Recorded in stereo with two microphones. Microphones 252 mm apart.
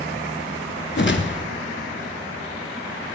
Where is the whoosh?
45° left (ahead or behind), 0.7 m.